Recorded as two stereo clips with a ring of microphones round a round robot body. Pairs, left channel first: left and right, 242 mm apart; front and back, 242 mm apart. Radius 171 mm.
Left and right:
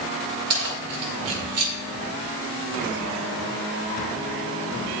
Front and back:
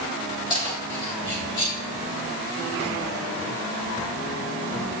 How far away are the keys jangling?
About 3 m.